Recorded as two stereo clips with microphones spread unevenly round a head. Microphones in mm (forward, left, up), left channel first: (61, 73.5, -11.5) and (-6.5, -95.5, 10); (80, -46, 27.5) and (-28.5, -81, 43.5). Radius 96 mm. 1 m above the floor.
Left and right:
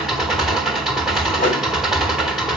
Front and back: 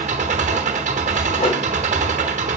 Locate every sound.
0.0 s an engine running: 165° left, 1.1 m
1.4 s a whoosh: 30° left, 2.5 m